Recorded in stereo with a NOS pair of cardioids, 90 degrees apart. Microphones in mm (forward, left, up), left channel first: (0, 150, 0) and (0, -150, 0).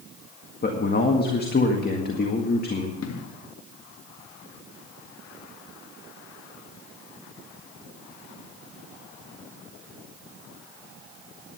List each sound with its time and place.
0.6 s a man speaking: 30° left, 1.8 m
3.0 s an explosion: 60° left, 1.6 m